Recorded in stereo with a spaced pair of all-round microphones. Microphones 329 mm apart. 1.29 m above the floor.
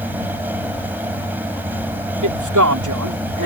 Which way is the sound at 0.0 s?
5° right (ahead or behind).